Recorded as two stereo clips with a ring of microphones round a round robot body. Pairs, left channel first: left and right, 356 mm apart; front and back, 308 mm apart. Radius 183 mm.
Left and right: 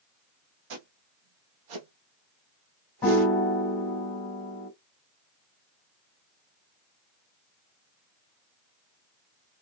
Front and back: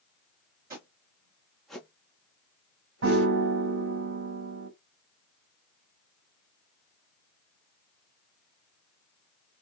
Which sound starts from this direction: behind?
A piano, at 3.0 s.